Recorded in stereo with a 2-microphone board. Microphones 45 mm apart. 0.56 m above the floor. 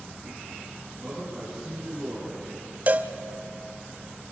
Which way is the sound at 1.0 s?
5° left (ahead or behind).